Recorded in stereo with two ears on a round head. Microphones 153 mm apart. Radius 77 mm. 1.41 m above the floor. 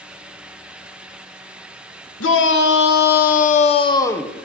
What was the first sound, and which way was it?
A shout, 80° left.